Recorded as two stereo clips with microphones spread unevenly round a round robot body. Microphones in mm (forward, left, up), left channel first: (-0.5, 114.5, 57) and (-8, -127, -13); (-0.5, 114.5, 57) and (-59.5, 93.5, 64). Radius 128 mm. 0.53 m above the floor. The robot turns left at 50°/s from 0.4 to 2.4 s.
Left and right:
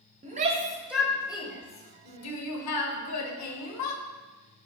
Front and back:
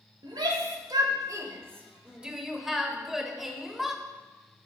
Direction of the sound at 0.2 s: 145° right.